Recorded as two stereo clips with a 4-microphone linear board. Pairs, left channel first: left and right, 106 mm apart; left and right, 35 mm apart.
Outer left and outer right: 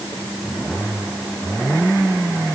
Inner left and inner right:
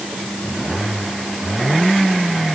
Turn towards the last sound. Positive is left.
No sound to turn to.